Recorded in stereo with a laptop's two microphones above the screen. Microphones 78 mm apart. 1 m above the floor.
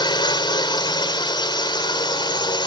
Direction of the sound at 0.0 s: 75° left (ahead or behind).